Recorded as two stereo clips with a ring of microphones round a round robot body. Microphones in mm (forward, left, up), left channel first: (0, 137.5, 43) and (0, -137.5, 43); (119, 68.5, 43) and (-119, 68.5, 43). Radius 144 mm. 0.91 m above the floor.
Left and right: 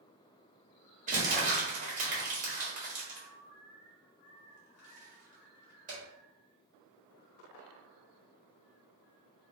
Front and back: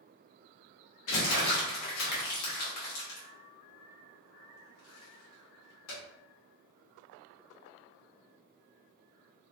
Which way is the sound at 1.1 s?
25° right.